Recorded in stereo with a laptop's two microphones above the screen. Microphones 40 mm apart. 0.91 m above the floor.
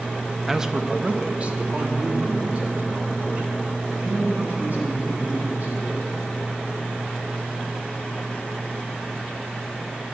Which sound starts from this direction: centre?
A man speaking, at 0.5 s.